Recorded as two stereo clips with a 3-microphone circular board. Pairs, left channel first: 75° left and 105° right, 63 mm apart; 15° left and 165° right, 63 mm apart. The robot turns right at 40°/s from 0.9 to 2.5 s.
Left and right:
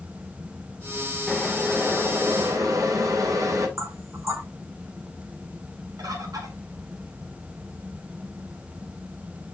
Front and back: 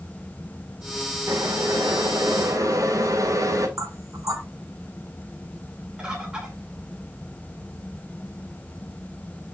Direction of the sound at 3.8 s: 140° right.